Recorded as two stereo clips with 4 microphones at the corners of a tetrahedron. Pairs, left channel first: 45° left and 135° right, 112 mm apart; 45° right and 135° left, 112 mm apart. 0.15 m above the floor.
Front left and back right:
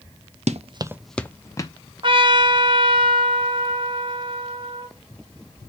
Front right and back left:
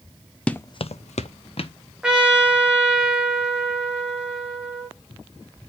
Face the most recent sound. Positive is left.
turn(degrees=-145)